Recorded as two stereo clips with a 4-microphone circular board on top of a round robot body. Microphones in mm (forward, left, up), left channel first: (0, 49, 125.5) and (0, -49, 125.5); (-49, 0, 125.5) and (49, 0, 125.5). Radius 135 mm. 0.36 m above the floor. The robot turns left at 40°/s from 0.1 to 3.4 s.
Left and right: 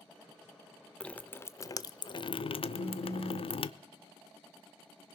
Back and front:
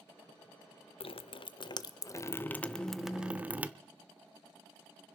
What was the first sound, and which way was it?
Dripping, 170° left.